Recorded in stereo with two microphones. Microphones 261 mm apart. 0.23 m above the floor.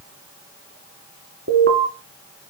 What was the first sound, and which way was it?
An alarm, 55° right (ahead or behind).